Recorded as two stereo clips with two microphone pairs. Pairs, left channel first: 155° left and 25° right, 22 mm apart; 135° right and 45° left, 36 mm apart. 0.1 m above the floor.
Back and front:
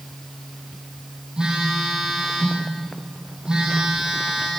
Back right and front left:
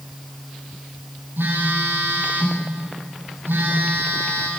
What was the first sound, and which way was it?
A phone buzzing, 30° left.